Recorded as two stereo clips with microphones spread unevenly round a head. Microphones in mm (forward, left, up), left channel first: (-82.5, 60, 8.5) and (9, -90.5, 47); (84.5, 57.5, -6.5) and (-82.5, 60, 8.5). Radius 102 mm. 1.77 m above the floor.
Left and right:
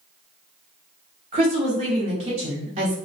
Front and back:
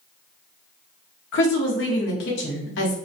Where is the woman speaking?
5° right, 0.7 m.